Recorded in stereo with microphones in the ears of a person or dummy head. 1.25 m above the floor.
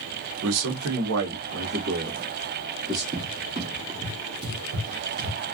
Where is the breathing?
I don't hear breathing.